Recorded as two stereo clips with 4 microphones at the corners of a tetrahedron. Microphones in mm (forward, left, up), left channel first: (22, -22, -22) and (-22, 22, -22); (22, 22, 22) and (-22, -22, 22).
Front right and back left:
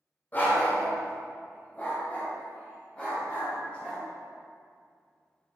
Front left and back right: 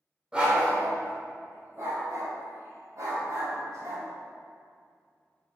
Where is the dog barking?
75° right, 1.6 m; by 4.0 s 120° right, 4 m.